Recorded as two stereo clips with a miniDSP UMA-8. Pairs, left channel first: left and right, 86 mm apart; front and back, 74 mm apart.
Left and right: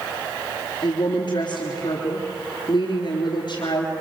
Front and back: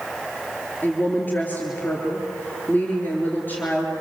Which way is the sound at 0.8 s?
65° left.